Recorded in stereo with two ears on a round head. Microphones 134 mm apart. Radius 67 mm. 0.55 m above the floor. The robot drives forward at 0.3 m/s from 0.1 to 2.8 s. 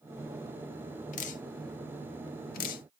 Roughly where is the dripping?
Left.